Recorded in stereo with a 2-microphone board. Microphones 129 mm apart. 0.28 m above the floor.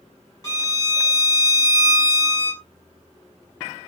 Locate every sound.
0.4 s a violin: 25° left (ahead or behind), 1.4 m